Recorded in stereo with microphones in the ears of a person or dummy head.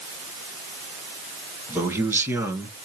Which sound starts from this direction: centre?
A man speaking, at 1.7 s.